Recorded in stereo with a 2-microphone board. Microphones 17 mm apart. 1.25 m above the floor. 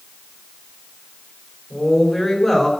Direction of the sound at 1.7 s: 10° left (ahead or behind).